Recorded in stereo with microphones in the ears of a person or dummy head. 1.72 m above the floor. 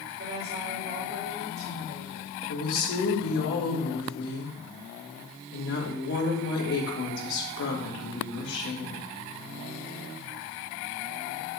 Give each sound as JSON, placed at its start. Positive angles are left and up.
{"t": 0.2, "sound": "a woman speaking", "side_deg": -55, "distance_m": 3.0}
{"t": 2.5, "sound": "a woman speaking", "side_deg": 70, "distance_m": 2.5}